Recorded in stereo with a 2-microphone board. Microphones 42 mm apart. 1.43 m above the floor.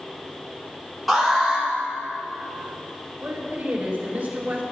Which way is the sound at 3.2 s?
40° right (ahead or behind).